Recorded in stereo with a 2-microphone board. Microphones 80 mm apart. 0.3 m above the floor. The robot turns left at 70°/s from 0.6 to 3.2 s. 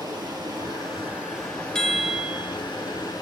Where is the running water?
125° right, 3.5 m; by 3.2 s 55° left, 3.5 m.